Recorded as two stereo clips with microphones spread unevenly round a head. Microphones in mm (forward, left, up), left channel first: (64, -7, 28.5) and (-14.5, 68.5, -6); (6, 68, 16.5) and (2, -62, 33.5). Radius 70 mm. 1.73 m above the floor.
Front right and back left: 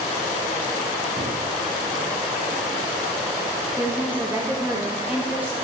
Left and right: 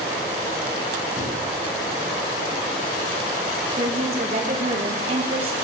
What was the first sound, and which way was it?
A thud, 105° left.